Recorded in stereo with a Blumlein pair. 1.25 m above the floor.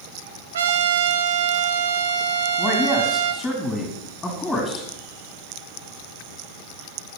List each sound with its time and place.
0.5 s a trumpet: 65° right, 0.7 m
2.6 s a man speaking: 10° left, 2.5 m